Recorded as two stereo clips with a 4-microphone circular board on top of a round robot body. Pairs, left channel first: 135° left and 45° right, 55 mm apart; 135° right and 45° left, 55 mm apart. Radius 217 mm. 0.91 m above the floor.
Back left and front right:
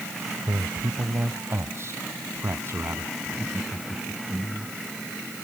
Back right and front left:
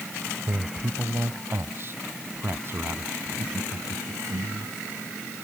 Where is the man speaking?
Straight ahead; by 3.1 s 5° right.